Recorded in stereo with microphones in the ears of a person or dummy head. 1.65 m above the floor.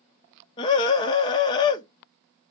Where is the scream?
25° left (ahead or behind), 0.6 m.